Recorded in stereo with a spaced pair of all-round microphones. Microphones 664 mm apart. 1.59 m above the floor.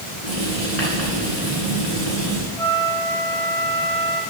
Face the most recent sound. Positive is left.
turn(degrees=70)  # may be behind; listen again after turning